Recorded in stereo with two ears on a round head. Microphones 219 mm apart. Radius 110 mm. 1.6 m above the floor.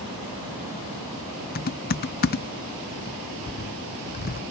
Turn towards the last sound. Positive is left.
turn(degrees=40)  # may be behind; listen again after turning